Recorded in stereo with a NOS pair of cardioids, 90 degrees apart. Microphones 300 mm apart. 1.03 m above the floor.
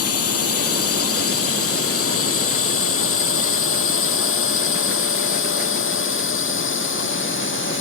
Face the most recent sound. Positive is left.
turn(degrees=40)